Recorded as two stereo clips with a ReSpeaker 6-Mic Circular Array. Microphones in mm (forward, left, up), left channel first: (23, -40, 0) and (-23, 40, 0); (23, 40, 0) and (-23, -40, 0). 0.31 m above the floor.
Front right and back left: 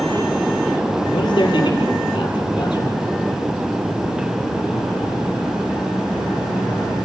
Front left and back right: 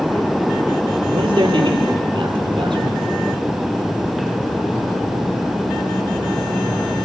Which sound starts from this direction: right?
A man speaking, at 1.1 s.